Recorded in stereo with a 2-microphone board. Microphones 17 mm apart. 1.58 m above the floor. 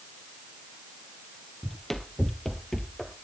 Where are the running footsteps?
25° left (ahead or behind), 1.7 m; by 3.1 s 20° left (ahead or behind), 1.7 m.